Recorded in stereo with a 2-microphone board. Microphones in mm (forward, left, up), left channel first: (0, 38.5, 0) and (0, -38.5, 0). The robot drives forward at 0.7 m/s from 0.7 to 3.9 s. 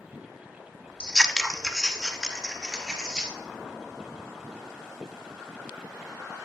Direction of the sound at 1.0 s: 15° left (ahead or behind).